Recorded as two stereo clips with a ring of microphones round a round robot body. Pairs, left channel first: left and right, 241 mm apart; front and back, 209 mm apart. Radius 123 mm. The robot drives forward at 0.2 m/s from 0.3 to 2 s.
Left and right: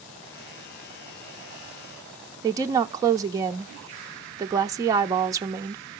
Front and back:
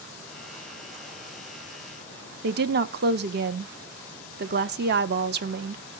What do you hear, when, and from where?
2.4 s a woman speaking: 165° right, 0.7 m